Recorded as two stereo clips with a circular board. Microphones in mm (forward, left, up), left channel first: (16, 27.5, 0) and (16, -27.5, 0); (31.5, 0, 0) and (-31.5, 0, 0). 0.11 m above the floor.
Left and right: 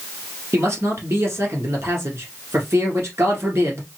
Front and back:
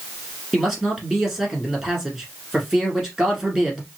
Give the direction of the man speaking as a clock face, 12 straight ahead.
3 o'clock.